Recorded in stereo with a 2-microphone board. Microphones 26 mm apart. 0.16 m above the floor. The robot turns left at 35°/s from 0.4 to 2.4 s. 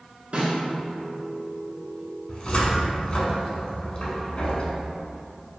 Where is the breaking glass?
I don't hear breaking glass.